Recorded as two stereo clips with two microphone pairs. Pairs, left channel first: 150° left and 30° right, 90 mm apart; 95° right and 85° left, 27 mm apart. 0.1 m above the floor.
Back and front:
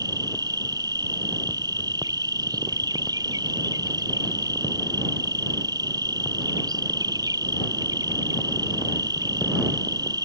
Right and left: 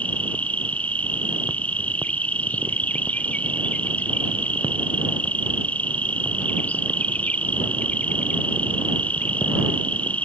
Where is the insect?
75° right.